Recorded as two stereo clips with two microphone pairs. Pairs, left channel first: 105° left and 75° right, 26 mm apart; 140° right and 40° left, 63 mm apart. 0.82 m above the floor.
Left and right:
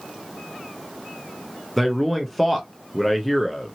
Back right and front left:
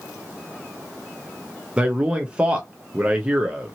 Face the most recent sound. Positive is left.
turn(degrees=25)